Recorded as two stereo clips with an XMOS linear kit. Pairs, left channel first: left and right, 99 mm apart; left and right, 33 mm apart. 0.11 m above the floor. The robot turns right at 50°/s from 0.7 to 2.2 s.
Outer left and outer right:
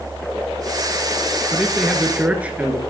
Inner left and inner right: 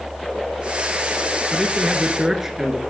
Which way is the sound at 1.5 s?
170° left.